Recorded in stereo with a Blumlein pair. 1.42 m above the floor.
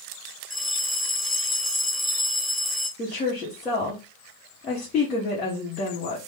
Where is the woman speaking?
30° left, 1.3 m.